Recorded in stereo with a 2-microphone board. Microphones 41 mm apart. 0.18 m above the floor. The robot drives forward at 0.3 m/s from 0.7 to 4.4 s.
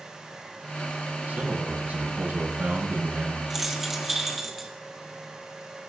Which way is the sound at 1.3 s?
40° right (ahead or behind).